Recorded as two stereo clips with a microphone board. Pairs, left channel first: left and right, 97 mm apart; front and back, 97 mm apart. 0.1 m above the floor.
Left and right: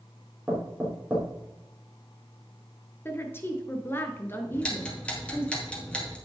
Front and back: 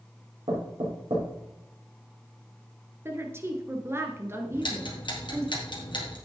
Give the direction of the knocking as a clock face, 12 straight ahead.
6 o'clock.